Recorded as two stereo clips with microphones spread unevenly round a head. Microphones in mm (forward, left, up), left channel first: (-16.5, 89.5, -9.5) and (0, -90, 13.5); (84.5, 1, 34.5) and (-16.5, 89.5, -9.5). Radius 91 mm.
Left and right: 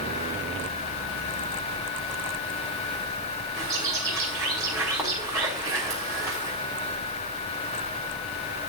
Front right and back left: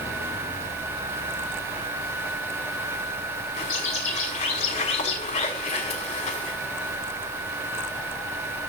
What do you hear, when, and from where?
3.6 s a bird: 10° right, 6.5 m